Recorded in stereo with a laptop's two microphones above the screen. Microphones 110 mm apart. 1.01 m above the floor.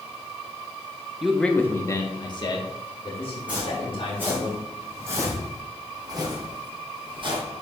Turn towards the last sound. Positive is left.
turn(degrees=-50)  # may be behind; listen again after turning